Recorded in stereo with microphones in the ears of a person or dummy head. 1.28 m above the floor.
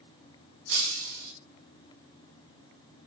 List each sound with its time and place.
0.7 s breaking glass: 75° right (ahead or behind), 6.5 m